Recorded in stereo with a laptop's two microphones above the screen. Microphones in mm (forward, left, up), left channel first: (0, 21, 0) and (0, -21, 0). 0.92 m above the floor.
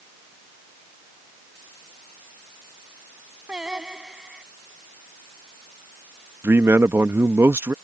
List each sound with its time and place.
3.5 s singing: 20° right (ahead or behind)
6.4 s a man speaking: 75° right (ahead or behind)